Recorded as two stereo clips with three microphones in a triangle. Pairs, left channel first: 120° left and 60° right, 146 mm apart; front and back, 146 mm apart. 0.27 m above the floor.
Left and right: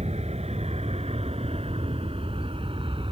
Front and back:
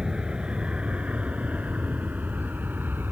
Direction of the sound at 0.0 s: 95° right.